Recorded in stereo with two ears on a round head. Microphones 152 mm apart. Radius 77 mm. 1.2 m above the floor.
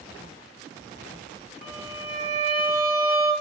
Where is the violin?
40° right (ahead or behind), 1.0 m.